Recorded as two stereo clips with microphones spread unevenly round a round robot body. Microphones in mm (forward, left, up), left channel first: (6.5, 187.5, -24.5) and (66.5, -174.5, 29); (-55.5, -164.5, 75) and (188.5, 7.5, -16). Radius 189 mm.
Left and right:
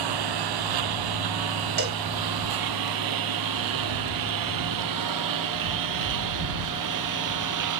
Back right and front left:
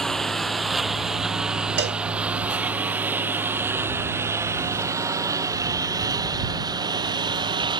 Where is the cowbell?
15° right.